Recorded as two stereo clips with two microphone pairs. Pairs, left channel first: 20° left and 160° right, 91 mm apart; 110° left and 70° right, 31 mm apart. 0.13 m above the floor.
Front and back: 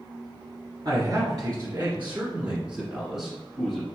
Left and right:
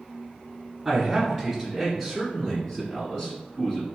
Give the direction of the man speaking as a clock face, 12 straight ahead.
5 o'clock.